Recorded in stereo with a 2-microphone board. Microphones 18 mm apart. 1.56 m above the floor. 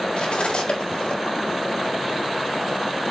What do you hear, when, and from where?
0.2 s cutlery clinking: 60° left (ahead or behind), 3.5 m